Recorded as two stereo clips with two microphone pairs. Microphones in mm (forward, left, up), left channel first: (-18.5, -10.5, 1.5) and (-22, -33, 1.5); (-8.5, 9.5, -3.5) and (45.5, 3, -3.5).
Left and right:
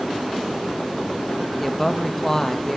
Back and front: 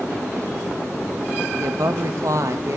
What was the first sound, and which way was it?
A woman speaking, straight ahead.